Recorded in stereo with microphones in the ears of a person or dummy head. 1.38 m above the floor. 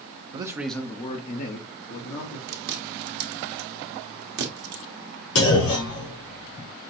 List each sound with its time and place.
0.3 s a man speaking: 30° right (ahead or behind), 0.7 m; by 2.4 s 65° left (ahead or behind), 1.8 m
2.5 s chewing: 60° right (ahead or behind), 1.2 m
5.3 s a clunk: 85° left, 3.5 m